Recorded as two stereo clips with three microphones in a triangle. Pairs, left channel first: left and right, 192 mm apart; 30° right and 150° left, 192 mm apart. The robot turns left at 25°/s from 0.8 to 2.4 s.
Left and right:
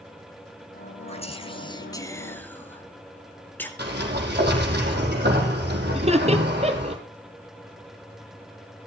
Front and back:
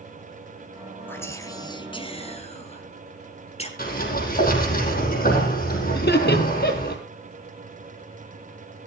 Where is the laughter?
35° right, 2 m.